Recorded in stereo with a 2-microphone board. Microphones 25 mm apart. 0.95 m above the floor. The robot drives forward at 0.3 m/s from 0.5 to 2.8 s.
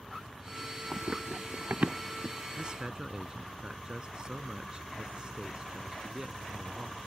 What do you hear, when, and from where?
0.9 s running footsteps: 60° right (ahead or behind); by 2.4 s 70° right (ahead or behind)
2.6 s a man speaking: 30° right (ahead or behind)